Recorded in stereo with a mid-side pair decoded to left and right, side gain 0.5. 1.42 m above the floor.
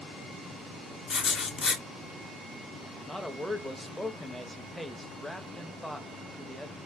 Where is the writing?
45° left, 1.0 m.